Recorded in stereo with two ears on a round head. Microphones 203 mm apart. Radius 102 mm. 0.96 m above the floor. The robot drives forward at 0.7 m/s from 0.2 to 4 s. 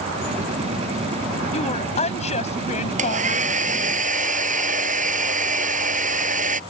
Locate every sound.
1.5 s a woman speaking: 30° left (ahead or behind); by 3.5 s 35° left (ahead or behind)
3.0 s a hair dryer: 35° right (ahead or behind)